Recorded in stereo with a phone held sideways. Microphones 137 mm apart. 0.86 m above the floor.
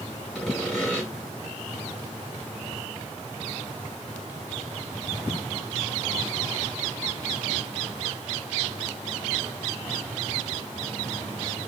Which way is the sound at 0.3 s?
Centre (ahead or behind).